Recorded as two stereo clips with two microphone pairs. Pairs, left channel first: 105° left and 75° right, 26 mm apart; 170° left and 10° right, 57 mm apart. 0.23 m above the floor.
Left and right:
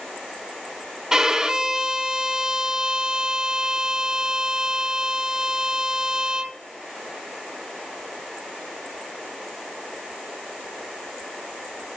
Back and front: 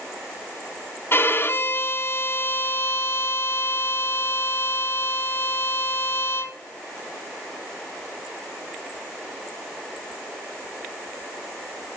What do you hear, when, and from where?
1.1 s a violin: 145° right, 0.7 m